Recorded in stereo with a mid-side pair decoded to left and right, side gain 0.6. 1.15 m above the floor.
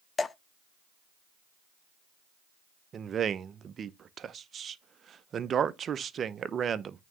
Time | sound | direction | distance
0.2 | dripping | 25° left | 0.5 m
2.9 | a man speaking | 40° right | 0.6 m